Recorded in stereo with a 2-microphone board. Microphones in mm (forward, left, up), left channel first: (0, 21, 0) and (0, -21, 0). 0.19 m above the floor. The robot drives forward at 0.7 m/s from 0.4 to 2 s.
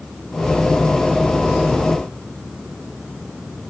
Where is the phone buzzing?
No phone buzzing in this recording.